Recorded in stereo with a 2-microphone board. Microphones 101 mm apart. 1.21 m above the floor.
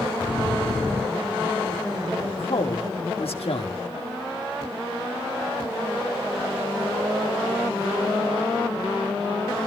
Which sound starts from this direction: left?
A woman speaking, at 2.3 s.